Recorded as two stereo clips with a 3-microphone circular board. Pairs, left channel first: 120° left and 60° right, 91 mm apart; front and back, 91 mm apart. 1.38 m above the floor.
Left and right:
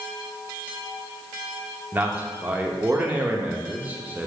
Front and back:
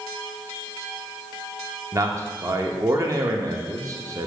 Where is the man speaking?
130° right, 0.6 m.